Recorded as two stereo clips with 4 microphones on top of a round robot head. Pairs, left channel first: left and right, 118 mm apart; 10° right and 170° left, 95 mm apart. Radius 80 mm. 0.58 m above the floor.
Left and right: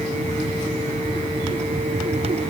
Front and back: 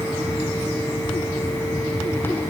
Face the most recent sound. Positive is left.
No sound to turn to.